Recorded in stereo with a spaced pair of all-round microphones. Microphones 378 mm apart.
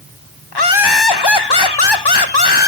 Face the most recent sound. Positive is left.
turn(degrees=80)